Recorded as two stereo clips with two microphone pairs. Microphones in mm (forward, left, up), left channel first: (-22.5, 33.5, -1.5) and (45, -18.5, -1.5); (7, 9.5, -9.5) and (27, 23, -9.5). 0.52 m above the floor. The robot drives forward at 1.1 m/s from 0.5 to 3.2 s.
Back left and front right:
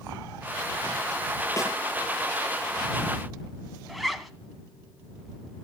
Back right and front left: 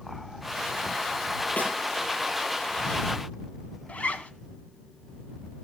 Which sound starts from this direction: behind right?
A zipper, at 3.9 s.